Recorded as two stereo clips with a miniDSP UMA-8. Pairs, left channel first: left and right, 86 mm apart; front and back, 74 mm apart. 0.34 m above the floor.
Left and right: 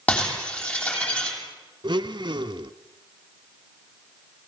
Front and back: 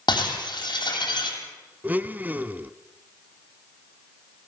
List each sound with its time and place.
0.1 s breaking glass: 15° left, 8.5 m
1.8 s a blender: 115° right, 1.0 m